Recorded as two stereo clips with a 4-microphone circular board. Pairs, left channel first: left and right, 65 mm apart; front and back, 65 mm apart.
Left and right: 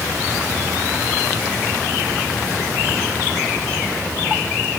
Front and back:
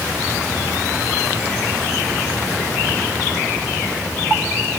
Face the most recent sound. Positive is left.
No sound to turn to.